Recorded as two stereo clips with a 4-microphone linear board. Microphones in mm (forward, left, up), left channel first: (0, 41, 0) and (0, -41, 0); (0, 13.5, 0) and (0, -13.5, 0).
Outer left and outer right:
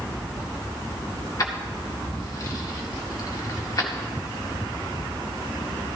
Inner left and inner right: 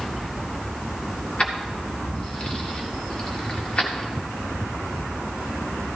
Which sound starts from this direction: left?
Keys jangling, at 1.4 s.